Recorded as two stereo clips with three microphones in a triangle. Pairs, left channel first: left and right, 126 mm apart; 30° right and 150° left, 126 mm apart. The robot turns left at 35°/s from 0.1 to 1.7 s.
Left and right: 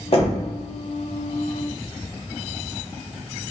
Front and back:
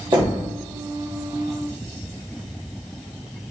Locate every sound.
0.1 s knocking: 110° left, 1.0 m; by 0.4 s 100° left, 1.0 m